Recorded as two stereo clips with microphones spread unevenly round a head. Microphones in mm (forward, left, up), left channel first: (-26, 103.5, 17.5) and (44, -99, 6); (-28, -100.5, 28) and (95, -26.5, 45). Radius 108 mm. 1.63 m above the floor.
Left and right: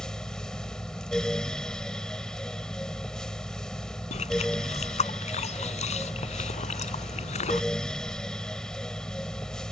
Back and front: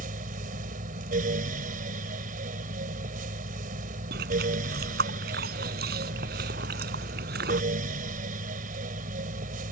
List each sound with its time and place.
0.0 s a fan: 25° left
4.1 s chewing: 50° left